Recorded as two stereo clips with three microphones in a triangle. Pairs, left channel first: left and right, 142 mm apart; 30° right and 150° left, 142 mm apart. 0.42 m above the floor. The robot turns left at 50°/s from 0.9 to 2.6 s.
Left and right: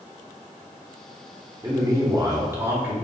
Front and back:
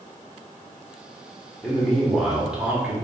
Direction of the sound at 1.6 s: 90° right.